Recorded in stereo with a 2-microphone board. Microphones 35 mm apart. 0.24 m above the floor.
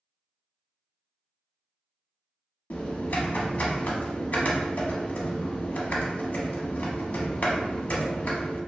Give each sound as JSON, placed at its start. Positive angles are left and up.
{"t": 2.7, "sound": "typing on a keyboard", "side_deg": 55, "distance_m": 0.6}